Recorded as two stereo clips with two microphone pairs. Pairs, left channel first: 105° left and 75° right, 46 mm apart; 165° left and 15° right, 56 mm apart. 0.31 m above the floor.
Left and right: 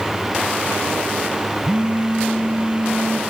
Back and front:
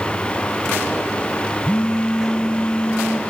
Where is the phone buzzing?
130° right, 1.1 m.